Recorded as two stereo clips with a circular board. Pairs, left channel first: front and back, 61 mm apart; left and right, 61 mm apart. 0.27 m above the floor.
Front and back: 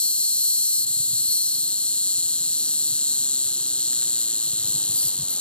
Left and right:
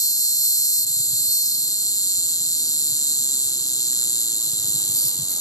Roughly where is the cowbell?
I don't hear a cowbell.